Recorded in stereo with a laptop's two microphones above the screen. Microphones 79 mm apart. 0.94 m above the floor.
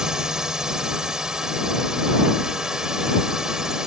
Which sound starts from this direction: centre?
A drone, at 0.0 s.